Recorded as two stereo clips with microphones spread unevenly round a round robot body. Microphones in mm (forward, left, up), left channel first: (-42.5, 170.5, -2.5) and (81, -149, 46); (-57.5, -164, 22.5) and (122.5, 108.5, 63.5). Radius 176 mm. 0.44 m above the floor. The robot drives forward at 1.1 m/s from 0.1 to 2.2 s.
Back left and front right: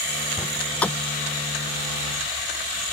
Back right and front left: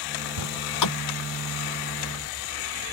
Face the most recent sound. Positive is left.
turn(degrees=-165)